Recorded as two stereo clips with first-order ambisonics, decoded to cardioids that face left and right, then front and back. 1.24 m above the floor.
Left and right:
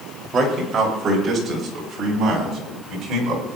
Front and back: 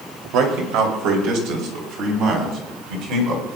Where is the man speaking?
155° right, 2.5 m; by 3.6 s 145° right, 4 m.